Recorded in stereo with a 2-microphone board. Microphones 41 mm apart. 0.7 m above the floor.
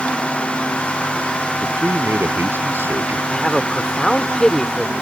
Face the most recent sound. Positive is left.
turn(degrees=15)  # may be behind; listen again after turning